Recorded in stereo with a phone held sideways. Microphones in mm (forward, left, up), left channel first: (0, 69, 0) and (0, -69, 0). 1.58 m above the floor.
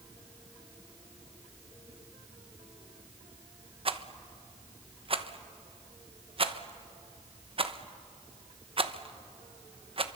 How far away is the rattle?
About 1.0 m.